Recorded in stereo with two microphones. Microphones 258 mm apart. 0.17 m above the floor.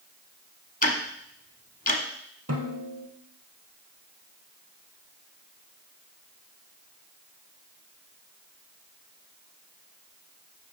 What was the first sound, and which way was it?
Ticking, 35° left (ahead or behind).